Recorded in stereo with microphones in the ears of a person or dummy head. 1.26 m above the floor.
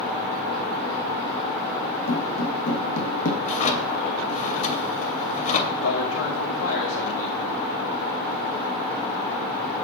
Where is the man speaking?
85° left, 2 m.